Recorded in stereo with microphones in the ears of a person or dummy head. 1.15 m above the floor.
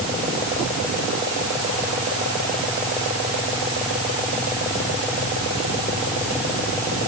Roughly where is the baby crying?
No baby crying in this recording.